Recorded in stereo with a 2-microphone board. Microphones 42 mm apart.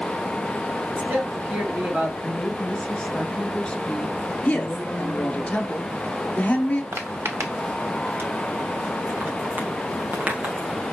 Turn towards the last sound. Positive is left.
turn(degrees=-35)  # may be behind; listen again after turning